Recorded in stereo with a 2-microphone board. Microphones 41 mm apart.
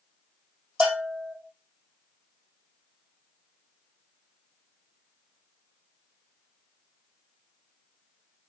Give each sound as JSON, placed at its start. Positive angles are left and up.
{"t": 0.8, "sound": "a bell", "side_deg": -20, "distance_m": 3.5}